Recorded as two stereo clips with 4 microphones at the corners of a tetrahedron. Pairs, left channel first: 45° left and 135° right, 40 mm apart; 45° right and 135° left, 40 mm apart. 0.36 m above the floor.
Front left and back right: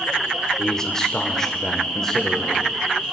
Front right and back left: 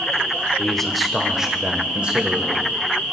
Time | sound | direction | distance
0.6 | a man speaking | 10° left | 0.9 m